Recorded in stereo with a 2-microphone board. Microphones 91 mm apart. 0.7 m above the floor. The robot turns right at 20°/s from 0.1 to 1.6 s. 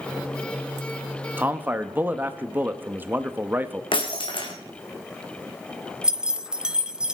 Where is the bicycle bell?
I don't hear a bicycle bell.